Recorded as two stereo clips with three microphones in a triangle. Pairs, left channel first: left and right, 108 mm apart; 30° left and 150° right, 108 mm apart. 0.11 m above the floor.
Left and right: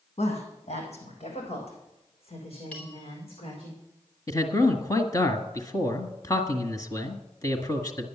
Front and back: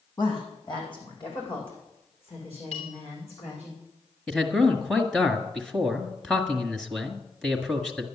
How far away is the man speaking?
About 1.6 m.